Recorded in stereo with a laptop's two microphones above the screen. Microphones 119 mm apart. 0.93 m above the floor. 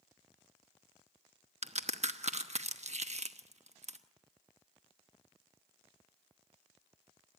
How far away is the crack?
About 1.0 m.